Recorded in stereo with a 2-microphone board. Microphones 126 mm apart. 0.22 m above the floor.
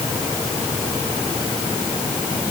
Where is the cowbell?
No cowbell in this recording.